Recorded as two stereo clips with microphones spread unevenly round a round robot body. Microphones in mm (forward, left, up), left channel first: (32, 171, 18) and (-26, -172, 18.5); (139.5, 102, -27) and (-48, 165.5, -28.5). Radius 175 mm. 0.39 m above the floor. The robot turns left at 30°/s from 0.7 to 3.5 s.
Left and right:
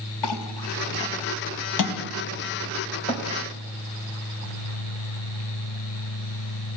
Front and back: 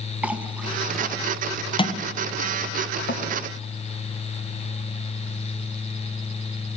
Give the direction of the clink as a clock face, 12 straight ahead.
9 o'clock.